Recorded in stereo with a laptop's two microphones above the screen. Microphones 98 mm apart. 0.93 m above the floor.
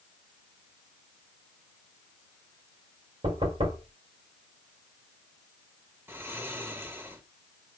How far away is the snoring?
About 2.0 m.